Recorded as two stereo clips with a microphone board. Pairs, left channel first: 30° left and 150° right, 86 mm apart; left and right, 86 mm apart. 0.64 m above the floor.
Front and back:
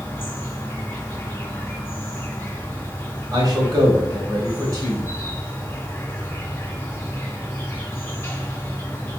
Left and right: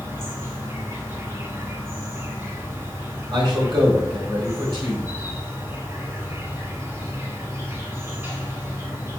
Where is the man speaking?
115° right, 1.6 m.